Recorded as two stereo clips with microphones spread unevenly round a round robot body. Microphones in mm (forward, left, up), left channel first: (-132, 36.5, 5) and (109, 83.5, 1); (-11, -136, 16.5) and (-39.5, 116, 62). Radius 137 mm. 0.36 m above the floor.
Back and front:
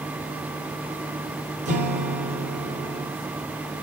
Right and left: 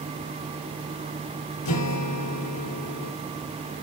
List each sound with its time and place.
1.6 s a guitar: 55° right, 3.5 m